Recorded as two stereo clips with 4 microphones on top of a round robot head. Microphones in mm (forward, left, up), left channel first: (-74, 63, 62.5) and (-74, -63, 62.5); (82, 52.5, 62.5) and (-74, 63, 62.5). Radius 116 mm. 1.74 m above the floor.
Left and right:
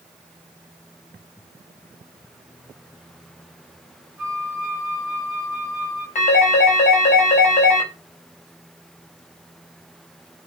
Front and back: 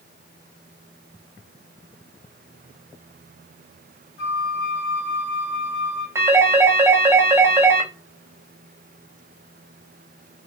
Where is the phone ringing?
105° left, 1.4 m.